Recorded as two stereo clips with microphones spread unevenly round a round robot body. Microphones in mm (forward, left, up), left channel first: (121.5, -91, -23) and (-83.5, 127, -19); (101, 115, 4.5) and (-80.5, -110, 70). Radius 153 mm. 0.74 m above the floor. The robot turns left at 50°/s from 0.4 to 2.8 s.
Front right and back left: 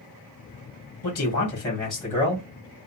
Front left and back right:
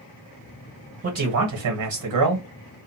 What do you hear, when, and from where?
1.0 s a man speaking: 90° right, 1.5 m; by 2.5 s 165° right, 1.5 m